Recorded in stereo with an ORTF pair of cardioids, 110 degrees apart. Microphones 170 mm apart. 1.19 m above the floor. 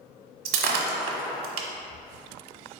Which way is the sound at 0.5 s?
65° right.